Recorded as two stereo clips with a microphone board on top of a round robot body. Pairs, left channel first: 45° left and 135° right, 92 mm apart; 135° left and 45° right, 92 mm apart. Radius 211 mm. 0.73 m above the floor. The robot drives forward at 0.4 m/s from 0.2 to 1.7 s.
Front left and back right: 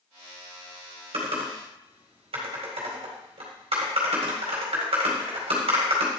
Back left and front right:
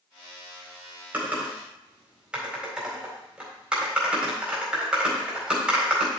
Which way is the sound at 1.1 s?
120° right.